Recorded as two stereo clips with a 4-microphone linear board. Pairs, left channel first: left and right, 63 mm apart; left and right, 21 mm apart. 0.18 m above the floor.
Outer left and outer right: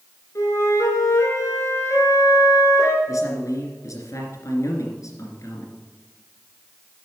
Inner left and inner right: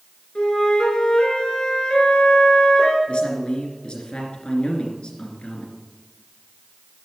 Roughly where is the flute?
Left.